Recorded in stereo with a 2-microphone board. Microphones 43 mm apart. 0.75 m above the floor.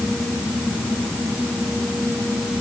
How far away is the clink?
I don't hear a clink.